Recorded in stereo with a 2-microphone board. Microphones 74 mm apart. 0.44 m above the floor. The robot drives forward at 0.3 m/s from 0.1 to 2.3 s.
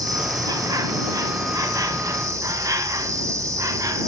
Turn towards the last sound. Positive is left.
turn(degrees=-45)  # may be behind; listen again after turning